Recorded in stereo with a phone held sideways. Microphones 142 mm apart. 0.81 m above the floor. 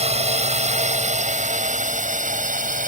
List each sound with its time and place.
0.0 s a drone: 50° right (ahead or behind); by 2.9 s 65° right (ahead or behind)